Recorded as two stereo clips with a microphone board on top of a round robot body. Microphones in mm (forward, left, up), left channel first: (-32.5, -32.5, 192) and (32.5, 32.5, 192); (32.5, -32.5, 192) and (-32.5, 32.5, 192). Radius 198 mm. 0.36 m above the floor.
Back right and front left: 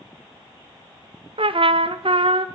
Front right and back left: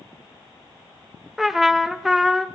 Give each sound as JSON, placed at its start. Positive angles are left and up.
{"t": 1.4, "sound": "a trumpet", "azimuth_deg": 50, "distance_m": 1.0}